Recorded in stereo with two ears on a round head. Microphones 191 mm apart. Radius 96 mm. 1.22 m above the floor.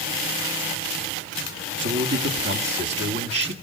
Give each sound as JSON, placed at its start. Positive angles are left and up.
{"t": 1.8, "sound": "a man speaking", "side_deg": -60, "distance_m": 2.0}